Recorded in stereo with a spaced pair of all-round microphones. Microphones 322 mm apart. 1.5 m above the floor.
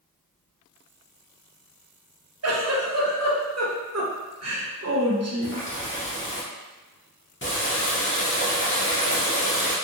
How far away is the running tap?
About 0.8 m.